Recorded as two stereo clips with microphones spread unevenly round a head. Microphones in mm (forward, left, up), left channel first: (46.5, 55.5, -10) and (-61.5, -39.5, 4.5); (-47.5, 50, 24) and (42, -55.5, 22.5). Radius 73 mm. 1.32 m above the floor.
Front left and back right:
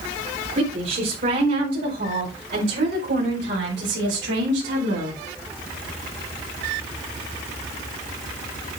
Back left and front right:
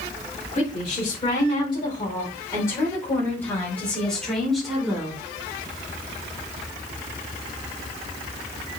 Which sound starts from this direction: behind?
A woman speaking, at 0.5 s.